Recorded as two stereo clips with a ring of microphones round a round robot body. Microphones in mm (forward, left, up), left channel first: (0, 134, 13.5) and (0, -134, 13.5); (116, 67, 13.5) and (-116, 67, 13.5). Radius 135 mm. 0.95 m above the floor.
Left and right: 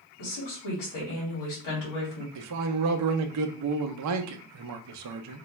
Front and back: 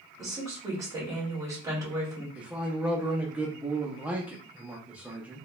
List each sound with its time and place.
0.2 s a woman speaking: 105° left, 1.9 m
2.4 s a man speaking: 95° right, 0.5 m